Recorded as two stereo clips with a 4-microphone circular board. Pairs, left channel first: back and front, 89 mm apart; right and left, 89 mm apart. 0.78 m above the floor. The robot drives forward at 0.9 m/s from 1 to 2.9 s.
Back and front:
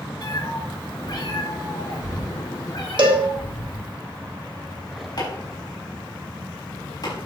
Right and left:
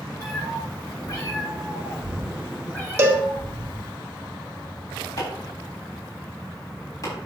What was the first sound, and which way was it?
A cat meowing, 140° right.